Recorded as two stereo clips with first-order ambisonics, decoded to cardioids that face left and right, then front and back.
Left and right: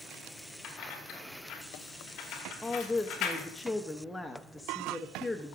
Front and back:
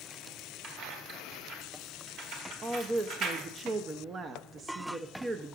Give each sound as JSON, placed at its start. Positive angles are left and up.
{"t": 0.6, "sound": "keys jangling", "azimuth_deg": 130, "distance_m": 1.6}
{"t": 2.6, "sound": "a woman speaking", "azimuth_deg": 165, "distance_m": 0.5}